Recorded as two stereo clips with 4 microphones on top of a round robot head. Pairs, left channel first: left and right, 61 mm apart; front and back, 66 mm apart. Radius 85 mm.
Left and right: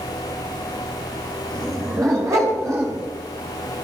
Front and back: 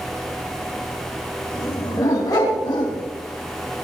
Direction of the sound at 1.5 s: 60° right.